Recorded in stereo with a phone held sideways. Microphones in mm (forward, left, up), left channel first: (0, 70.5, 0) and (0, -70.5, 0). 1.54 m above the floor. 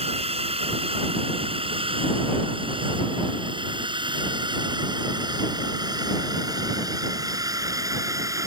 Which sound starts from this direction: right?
A drone, at 0.0 s.